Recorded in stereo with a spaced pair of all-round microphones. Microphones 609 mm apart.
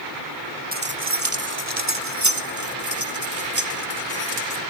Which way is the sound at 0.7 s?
15° right (ahead or behind).